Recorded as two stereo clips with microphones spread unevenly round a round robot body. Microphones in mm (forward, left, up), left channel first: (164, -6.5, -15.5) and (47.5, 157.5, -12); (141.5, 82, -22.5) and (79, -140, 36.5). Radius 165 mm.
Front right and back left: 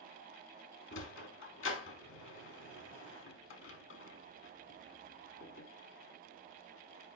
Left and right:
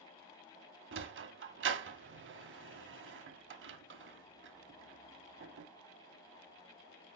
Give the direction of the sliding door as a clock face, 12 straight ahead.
3 o'clock.